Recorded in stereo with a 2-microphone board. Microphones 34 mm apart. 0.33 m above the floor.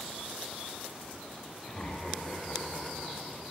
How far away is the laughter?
About 1.0 m.